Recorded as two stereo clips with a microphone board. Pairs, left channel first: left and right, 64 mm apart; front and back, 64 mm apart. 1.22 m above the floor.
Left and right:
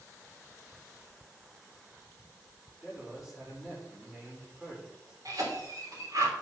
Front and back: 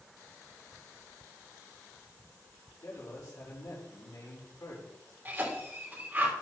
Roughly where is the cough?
Behind right.